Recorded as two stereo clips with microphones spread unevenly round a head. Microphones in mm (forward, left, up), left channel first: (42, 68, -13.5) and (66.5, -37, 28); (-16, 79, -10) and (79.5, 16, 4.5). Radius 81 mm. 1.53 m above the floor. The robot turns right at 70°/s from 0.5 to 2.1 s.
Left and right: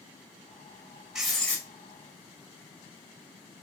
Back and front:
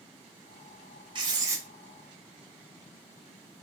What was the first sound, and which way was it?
Writing, 15° right.